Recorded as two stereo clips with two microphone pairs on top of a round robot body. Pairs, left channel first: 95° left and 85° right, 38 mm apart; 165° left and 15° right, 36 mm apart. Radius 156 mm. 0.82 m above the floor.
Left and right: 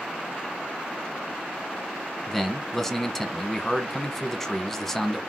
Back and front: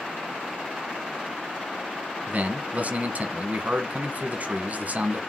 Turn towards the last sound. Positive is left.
turn(degrees=10)